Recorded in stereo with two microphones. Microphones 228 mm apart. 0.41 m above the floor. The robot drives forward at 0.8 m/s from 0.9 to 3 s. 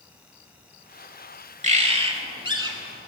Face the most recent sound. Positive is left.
turn(degrees=-20)  # may be behind; listen again after turning